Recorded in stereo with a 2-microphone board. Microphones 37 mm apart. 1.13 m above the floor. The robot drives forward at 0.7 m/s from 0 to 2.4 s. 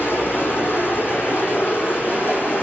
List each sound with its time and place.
0.0 s running water: 75° left (ahead or behind), 5 m; by 2.6 s 60° left (ahead or behind), 5.5 m